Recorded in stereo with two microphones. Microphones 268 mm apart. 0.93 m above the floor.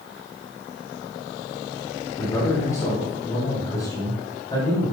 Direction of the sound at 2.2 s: 10° left (ahead or behind).